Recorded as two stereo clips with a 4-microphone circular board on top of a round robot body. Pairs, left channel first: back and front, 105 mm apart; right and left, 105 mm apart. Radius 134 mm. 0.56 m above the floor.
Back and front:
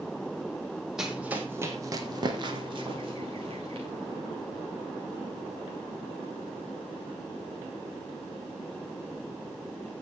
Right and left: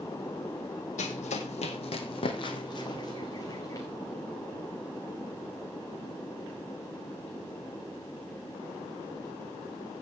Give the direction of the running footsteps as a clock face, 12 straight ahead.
3 o'clock.